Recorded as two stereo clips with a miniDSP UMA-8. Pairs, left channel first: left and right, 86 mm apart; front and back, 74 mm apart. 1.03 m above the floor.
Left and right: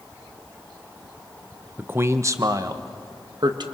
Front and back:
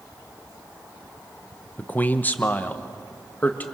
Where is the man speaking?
45° right, 0.8 m; by 3.6 s 65° right, 1.6 m.